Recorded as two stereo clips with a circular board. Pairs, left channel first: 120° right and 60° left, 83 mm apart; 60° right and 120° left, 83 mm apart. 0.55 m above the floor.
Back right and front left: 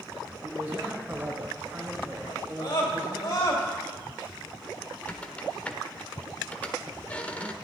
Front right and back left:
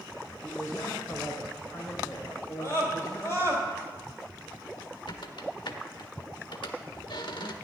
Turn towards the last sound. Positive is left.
turn(degrees=-50)